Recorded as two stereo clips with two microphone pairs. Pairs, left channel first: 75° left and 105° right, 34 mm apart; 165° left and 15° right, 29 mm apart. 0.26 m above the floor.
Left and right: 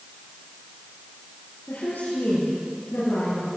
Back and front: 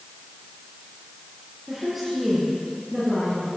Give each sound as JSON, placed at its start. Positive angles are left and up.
{"t": 1.7, "sound": "a woman speaking", "azimuth_deg": 70, "distance_m": 6.0}